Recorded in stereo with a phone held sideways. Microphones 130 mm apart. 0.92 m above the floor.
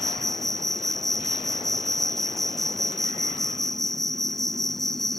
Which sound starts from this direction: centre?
An insect, at 0.0 s.